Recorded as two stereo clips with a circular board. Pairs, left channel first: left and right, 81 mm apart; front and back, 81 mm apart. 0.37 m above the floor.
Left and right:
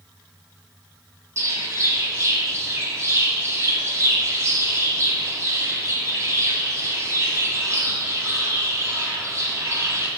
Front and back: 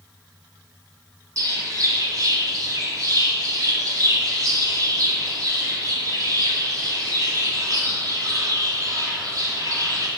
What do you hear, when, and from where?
1.4 s a bird: 140° right, 1.2 m